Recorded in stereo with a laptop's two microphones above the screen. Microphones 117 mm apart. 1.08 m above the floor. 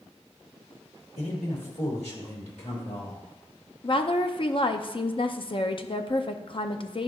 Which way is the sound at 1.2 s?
70° left (ahead or behind).